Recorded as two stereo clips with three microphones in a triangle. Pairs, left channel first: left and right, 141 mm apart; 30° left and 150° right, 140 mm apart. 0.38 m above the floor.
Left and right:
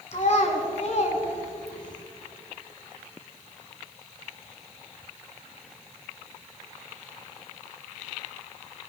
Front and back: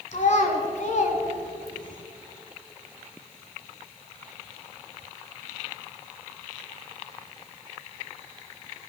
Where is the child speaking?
55° left, 1.7 m.